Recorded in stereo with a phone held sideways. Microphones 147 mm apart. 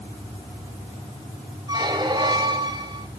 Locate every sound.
1.7 s a squeak: 30° right (ahead or behind), 0.9 m